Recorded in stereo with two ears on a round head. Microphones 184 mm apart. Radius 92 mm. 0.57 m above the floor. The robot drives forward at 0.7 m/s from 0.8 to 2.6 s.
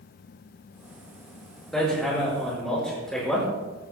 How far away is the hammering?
About 6.5 m.